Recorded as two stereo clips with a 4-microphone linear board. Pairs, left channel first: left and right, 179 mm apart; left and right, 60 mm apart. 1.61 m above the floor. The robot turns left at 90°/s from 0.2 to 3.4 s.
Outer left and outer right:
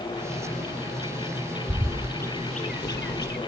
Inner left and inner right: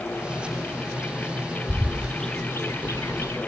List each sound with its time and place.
1.7 s a bird: 35° right (ahead or behind); by 3.4 s 60° left (ahead or behind)